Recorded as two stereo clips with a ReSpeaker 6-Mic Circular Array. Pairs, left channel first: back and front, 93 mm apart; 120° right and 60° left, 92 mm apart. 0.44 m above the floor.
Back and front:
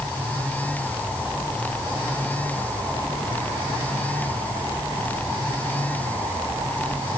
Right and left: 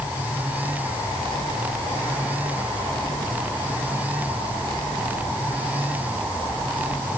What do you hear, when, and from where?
Only background noise.